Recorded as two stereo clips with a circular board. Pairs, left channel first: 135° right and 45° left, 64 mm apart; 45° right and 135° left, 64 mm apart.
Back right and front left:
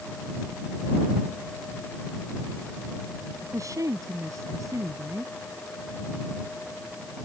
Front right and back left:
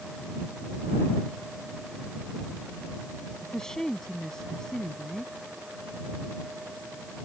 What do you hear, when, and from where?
3.4 s a woman speaking: 35° left